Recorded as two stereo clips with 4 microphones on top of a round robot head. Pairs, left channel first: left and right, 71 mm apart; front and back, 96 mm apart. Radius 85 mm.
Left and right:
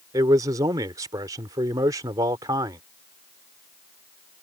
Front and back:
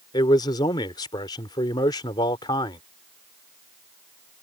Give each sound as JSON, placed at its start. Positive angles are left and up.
{"t": 0.1, "sound": "a man speaking", "azimuth_deg": -50}